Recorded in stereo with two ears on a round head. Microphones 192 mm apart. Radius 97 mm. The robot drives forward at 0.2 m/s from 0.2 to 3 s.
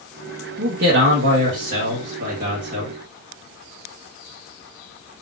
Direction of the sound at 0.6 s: 60° right (ahead or behind).